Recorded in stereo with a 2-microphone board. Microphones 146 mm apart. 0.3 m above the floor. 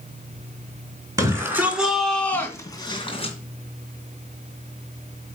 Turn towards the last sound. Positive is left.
turn(degrees=45)  # may be behind; listen again after turning